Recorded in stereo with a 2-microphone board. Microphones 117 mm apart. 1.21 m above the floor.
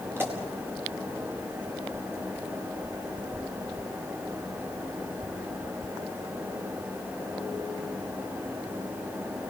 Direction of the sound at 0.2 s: 20° right (ahead or behind).